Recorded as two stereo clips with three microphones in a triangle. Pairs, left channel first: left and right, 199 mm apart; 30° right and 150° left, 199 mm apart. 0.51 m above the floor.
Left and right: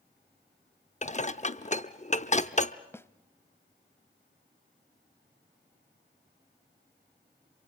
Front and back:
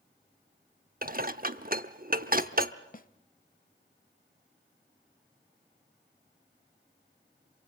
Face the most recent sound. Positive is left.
turn(degrees=10)